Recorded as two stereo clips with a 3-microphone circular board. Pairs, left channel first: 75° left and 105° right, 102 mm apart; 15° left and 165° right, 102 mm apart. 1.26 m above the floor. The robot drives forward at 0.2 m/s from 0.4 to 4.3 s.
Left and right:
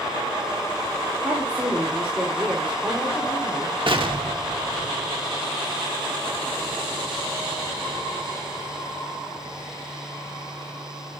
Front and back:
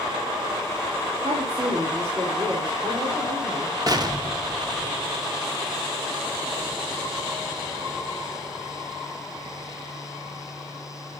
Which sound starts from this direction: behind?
A woman speaking, at 1.2 s.